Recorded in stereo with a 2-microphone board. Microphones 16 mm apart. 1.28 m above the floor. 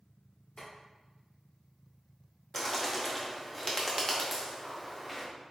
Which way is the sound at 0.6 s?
70° left (ahead or behind).